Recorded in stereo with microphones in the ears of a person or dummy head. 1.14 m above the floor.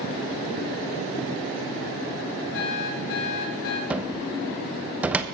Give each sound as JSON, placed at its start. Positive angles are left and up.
{"t": 2.5, "sound": "an alarm clock", "side_deg": 65, "distance_m": 1.9}
{"t": 3.9, "sound": "a cupboard door", "side_deg": -10, "distance_m": 0.7}